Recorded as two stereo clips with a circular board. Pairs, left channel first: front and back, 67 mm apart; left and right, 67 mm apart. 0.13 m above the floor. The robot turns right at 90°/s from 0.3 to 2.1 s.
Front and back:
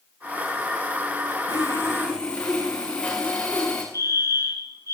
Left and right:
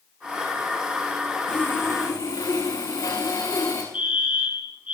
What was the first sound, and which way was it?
Sawing, 15° left.